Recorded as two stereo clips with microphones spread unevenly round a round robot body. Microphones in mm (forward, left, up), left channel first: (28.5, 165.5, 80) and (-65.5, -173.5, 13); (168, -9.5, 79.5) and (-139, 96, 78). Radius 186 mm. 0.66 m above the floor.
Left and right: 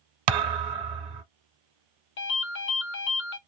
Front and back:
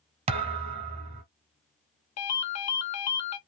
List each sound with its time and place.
0.3 s a thud: 125° right, 1.0 m
2.2 s a ringtone: 15° left, 1.0 m